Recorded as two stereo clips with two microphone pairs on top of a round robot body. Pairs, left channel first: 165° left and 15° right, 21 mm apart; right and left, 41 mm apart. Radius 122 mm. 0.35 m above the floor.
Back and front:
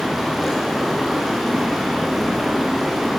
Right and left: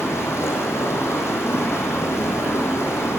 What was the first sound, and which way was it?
Running water, 100° right.